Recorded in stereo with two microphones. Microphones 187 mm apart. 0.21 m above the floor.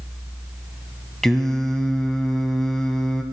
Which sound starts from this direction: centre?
Singing, at 1.2 s.